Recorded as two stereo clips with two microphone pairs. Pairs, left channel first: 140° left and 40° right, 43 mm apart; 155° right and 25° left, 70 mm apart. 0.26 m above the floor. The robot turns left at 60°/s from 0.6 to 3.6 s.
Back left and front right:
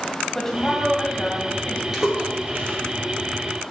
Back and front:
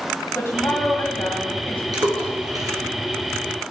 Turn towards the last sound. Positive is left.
turn(degrees=-60)